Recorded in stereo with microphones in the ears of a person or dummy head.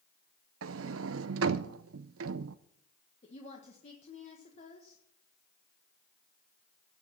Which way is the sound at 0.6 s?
65° right (ahead or behind).